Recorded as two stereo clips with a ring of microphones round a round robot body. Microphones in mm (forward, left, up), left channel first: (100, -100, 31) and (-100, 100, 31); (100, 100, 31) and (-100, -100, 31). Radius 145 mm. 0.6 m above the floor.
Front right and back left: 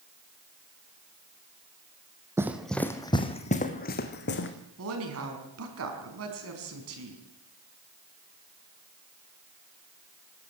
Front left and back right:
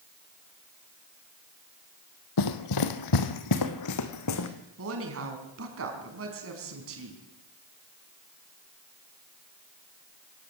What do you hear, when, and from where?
2.4 s running footsteps: 55° left, 1.2 m; by 4.5 s 10° left, 2 m
4.8 s a woman speaking: straight behind, 4.5 m